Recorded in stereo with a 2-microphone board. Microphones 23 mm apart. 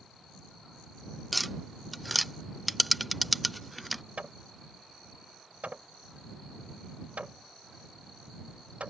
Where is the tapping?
Centre (ahead or behind).